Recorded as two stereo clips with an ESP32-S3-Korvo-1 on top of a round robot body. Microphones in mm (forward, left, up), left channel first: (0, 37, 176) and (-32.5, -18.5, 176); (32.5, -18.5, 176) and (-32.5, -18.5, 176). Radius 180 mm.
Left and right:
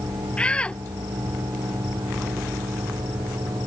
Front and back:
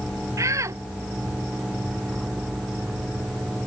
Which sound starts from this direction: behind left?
A shout, at 0.4 s.